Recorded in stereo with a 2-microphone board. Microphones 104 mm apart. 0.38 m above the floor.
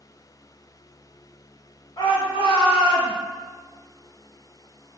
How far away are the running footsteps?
I don't hear running footsteps.